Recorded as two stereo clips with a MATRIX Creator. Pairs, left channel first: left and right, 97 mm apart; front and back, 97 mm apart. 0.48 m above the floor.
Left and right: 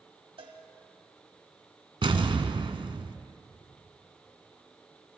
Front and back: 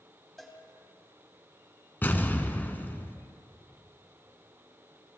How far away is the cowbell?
About 2 m.